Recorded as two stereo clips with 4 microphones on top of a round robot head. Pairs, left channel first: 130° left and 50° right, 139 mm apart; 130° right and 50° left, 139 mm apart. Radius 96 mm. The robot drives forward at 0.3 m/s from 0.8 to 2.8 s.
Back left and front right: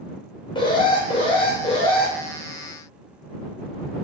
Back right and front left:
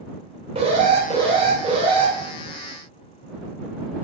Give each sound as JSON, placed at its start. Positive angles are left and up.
{"t": 0.6, "sound": "an alarm", "azimuth_deg": 85, "distance_m": 2.5}